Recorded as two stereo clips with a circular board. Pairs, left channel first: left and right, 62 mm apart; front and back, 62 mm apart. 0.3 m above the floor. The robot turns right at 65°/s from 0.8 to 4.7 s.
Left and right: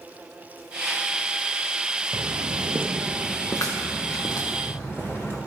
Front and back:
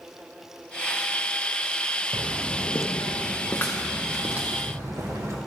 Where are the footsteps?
135° right, 1.1 m; by 5.4 s 145° left, 4 m.